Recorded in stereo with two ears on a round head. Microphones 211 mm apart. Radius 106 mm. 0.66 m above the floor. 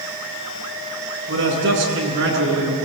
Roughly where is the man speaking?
Right.